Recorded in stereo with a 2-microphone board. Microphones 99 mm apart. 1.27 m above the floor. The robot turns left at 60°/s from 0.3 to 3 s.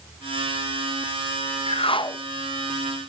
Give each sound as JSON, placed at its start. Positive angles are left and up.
{"t": 1.7, "sound": "a whoosh", "azimuth_deg": 75, "distance_m": 0.8}